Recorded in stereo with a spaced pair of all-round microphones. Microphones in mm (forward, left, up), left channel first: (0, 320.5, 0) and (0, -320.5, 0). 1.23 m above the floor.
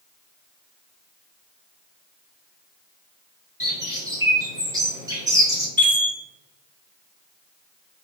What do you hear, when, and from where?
3.6 s a bird: 5° right (ahead or behind), 0.6 m
5.8 s a chime: 55° right (ahead or behind), 1.6 m